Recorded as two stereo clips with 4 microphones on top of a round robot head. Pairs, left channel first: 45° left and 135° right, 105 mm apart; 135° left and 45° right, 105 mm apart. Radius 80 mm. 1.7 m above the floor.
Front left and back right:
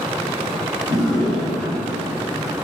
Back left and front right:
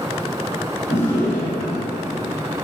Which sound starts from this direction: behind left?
A drawer, at 0.9 s.